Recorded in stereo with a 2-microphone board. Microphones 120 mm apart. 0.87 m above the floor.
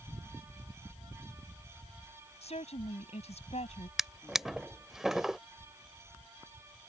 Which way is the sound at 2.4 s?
60° left (ahead or behind).